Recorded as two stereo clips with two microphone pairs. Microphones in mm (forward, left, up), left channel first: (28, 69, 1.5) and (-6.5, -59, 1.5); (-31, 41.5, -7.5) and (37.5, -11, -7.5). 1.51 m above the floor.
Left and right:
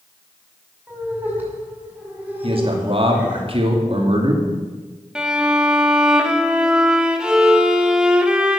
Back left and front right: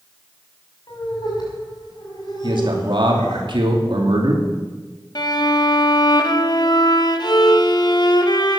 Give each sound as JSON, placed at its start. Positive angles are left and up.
{"t": 0.9, "sound": "laughter", "azimuth_deg": 175, "distance_m": 6.0}
{"t": 2.4, "sound": "a man speaking", "azimuth_deg": -60, "distance_m": 2.5}
{"t": 5.2, "sound": "a violin", "azimuth_deg": 170, "distance_m": 1.1}